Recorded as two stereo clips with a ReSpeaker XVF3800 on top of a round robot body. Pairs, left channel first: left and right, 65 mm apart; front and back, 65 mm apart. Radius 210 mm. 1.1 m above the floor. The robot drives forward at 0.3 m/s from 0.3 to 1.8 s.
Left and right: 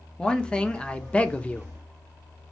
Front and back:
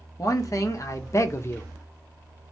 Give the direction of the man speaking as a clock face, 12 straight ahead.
12 o'clock.